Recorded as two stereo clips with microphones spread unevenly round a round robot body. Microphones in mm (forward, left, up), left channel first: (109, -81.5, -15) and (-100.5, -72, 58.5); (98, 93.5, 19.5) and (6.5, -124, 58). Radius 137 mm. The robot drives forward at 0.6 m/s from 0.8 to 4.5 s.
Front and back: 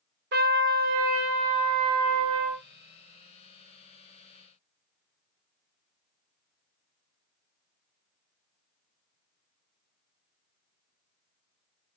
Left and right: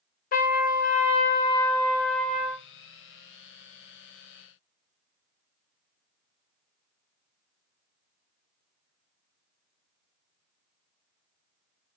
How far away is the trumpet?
About 0.7 m.